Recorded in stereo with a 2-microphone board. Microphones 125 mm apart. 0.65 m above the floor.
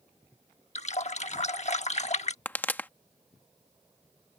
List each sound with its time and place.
0.8 s a running tap: 60° left (ahead or behind)
2.5 s a pop: 15° left (ahead or behind)